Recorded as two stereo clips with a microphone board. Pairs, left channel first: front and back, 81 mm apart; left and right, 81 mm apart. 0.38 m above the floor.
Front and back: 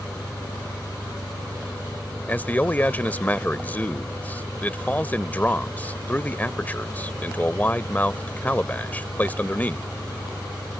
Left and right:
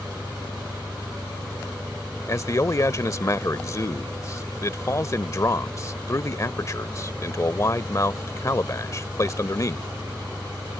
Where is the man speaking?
60° left.